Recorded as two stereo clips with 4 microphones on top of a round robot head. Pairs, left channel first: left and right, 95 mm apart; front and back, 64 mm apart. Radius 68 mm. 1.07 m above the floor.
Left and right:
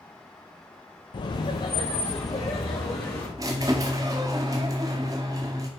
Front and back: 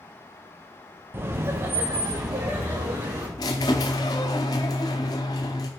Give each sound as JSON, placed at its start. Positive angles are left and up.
{"t": 1.1, "sound": "laughter", "azimuth_deg": 125, "distance_m": 0.6}
{"t": 3.4, "sound": "a squeak", "azimuth_deg": -30, "distance_m": 0.7}